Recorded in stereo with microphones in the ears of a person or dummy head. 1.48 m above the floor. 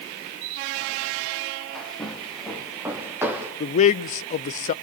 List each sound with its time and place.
1.8 s footsteps: centre (ahead or behind), 3.5 m; by 3.5 s 15° right (ahead or behind), 3.5 m
3.6 s a man speaking: 40° left (ahead or behind), 0.7 m